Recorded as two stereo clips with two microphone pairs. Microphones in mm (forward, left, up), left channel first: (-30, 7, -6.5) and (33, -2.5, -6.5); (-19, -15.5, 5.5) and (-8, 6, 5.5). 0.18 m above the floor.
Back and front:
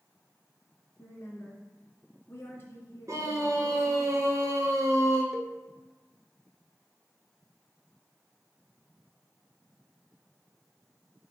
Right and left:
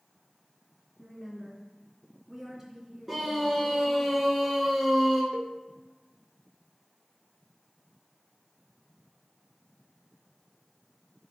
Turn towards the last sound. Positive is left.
turn(degrees=75)